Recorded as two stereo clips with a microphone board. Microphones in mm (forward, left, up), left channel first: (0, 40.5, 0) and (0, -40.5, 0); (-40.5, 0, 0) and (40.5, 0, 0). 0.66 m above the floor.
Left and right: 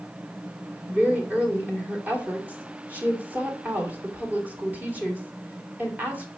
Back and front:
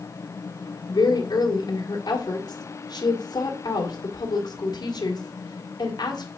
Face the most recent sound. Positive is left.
turn(degrees=-160)